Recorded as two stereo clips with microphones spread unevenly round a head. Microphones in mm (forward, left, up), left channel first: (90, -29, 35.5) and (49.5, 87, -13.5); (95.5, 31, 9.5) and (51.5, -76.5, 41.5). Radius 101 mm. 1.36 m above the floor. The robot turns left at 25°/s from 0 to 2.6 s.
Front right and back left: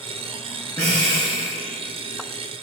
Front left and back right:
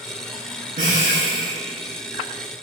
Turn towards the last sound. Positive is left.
turn(degrees=160)